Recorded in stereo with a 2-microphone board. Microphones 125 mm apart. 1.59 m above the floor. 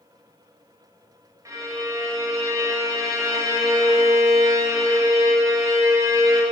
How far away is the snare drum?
I don't hear a snare drum.